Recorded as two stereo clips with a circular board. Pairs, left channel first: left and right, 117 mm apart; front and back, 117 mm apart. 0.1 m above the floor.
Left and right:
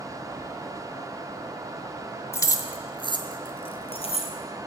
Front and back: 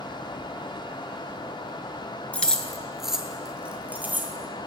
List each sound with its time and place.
2.3 s keys jangling: 65° left, 0.8 m; by 4.3 s 110° left, 1.6 m